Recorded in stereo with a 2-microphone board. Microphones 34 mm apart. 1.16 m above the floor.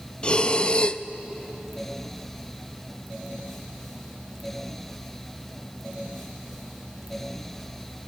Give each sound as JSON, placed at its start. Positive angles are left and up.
{"t": 0.2, "sound": "breathing", "side_deg": 35, "distance_m": 0.5}